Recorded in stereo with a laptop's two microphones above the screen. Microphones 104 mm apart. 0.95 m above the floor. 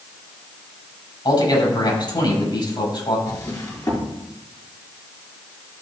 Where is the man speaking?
50° left (ahead or behind), 6.5 m.